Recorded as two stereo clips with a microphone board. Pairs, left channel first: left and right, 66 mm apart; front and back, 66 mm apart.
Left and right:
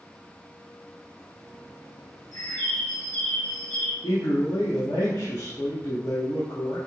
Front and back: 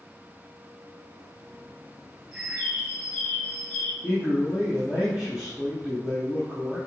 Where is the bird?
105° left, 1.6 m.